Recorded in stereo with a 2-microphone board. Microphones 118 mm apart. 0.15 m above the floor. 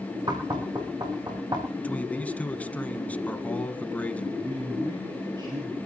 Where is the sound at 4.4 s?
40° right (ahead or behind), 3.5 m.